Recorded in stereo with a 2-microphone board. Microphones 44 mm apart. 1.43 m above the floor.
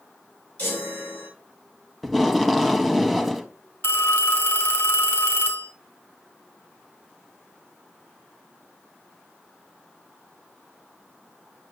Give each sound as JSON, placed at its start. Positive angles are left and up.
{"t": 0.6, "sound": "a chime", "side_deg": 30, "distance_m": 6.5}
{"t": 2.0, "sound": "tape being pulled", "side_deg": 0, "distance_m": 0.8}
{"t": 3.8, "sound": "a phone ringing", "side_deg": 55, "distance_m": 2.5}